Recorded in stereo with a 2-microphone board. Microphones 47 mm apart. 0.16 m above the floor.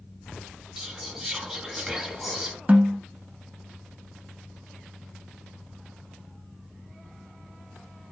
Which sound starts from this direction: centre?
Whispering, at 0.8 s.